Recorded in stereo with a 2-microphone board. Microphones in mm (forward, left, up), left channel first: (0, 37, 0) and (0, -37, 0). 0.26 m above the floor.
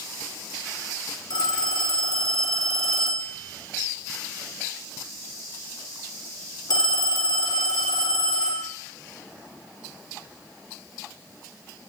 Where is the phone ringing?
65° left (ahead or behind), 1.8 m.